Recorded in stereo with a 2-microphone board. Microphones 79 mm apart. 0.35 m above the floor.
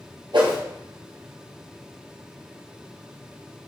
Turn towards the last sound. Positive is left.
turn(degrees=-75)  # may be behind; listen again after turning